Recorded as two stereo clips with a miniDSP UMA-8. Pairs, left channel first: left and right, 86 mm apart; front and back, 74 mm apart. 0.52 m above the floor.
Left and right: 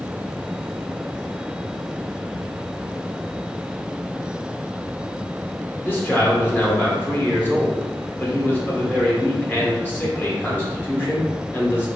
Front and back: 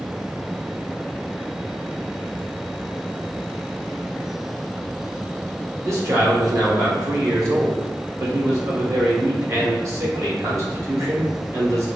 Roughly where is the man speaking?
Behind left.